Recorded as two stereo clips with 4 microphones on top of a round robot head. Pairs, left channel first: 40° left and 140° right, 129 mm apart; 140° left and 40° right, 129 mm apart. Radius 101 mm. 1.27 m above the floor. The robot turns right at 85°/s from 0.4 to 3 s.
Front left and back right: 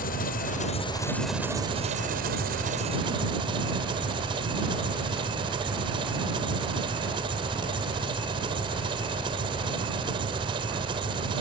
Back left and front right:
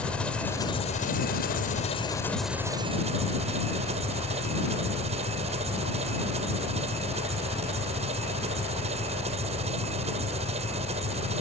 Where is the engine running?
55° left; by 11.4 s 85° right.